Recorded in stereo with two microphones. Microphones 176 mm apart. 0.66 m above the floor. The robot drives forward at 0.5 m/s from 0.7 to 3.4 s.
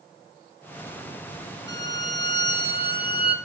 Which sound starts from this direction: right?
A violin, at 1.7 s.